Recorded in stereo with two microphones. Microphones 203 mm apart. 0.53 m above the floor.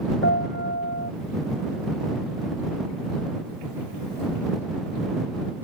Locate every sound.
0.2 s a piano: 80° left